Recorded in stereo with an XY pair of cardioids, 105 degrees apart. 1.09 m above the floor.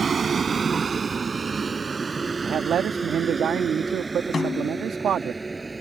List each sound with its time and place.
0.0 s a vehicle: 35° right; by 5.8 s 15° right
2.4 s a man speaking: 55° right
4.3 s a snare drum: 35° left